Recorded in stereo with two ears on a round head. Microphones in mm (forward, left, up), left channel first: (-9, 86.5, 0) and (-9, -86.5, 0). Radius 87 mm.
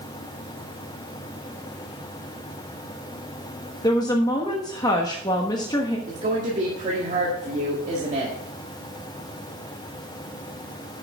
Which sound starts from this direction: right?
A woman speaking, at 6.1 s.